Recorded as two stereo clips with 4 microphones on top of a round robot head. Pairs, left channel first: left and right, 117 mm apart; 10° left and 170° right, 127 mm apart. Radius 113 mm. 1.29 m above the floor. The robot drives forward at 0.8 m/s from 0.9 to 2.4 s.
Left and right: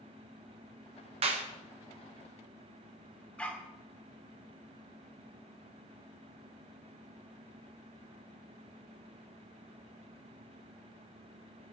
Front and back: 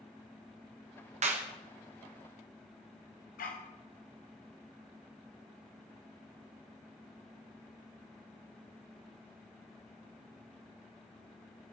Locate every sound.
1.2 s a clap: 135° right, 1.7 m; by 1.5 s 140° right, 1.8 m
3.4 s a dog barking: 10° left, 1.8 m